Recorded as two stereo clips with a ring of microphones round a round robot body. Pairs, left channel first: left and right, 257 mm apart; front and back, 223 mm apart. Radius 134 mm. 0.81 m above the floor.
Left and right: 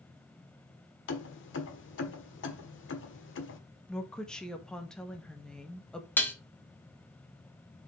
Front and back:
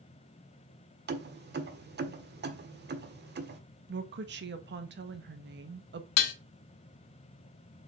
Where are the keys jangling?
135° left, 1.4 m.